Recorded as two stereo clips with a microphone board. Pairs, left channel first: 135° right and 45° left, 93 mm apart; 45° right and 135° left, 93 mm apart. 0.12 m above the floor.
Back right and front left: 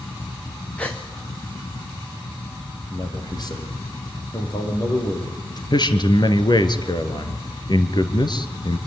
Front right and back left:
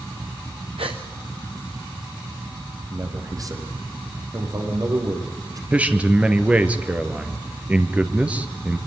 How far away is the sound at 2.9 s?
About 5.5 m.